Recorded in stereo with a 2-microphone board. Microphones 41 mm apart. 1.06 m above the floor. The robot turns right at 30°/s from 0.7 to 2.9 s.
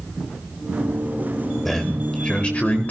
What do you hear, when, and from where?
1.6 s a man speaking: 10° left, 4 m; by 2.9 s 45° left, 4 m